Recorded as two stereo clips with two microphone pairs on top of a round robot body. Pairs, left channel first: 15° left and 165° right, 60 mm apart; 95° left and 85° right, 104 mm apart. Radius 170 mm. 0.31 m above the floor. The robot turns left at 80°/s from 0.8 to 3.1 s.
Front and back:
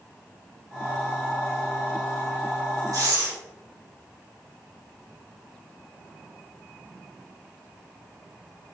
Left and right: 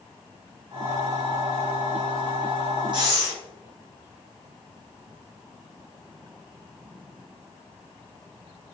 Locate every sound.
2.9 s breathing: 135° right, 1.8 m; by 3.3 s 150° right, 1.8 m